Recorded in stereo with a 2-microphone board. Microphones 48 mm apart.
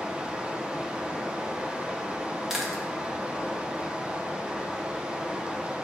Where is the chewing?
5° right (ahead or behind), 1.4 m.